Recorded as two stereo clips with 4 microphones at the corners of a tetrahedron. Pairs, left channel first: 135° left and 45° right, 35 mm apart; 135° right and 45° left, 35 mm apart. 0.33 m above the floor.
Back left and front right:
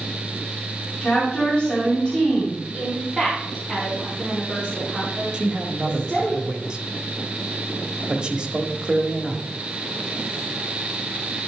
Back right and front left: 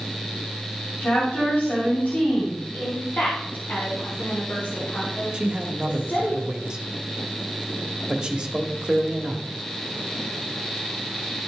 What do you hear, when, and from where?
1.0 s a woman speaking: 155° right, 2.5 m
2.7 s a woman speaking: 125° right, 2.5 m
5.3 s a man speaking: 5° right, 1.1 m